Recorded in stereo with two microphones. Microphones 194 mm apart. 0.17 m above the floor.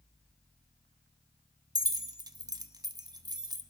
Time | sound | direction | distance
1.8 | keys jangling | 20° right (ahead or behind) | 0.7 m